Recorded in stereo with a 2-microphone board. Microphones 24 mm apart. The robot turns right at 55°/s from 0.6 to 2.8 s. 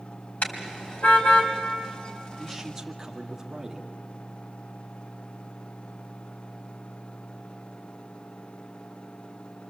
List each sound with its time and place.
0.4 s a car horn: 65° left (ahead or behind), 2.5 m; by 1.5 s 55° left (ahead or behind), 2.5 m
2.4 s a man speaking: centre (ahead or behind), 2.0 m; by 3.9 s 20° right (ahead or behind), 2.0 m